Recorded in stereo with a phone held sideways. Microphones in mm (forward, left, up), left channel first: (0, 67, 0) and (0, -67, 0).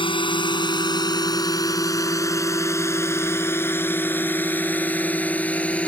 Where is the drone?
40° left (ahead or behind); by 5.9 s 10° left (ahead or behind).